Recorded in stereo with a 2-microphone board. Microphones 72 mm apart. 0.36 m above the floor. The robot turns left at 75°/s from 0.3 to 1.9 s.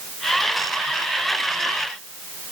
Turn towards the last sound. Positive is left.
No sound to turn to.